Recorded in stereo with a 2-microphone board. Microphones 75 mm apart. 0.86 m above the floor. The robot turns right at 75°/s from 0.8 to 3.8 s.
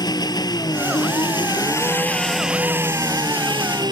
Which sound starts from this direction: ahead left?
An engine running, at 0.0 s.